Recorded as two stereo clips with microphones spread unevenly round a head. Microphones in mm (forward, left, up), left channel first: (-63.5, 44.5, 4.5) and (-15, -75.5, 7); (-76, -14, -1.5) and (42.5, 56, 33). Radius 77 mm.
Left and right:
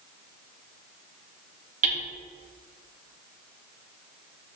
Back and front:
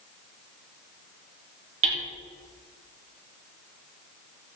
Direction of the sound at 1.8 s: 15° right.